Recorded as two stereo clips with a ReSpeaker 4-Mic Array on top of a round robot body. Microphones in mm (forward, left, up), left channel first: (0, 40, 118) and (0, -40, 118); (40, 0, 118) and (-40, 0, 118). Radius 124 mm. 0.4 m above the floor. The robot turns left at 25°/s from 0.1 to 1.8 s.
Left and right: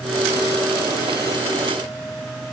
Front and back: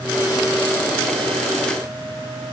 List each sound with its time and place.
Only background noise.